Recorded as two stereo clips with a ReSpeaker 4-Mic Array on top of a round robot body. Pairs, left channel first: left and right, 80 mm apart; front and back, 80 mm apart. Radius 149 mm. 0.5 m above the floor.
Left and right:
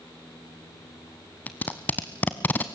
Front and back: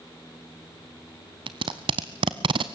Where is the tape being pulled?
160° left, 0.6 m.